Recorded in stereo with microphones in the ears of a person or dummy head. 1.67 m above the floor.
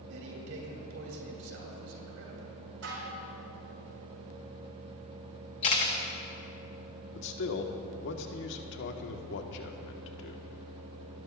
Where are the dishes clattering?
65° right (ahead or behind), 4 m.